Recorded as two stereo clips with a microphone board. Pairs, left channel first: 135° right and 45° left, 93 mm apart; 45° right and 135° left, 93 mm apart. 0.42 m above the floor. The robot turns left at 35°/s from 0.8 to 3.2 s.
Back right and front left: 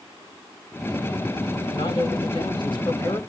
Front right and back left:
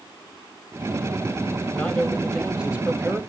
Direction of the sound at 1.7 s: 115° right.